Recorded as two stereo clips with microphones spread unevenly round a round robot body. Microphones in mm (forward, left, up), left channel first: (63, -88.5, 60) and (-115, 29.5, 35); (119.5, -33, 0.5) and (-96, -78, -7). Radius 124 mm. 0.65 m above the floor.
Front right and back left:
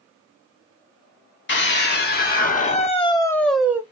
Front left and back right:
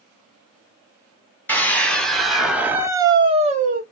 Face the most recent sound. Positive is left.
turn(degrees=-150)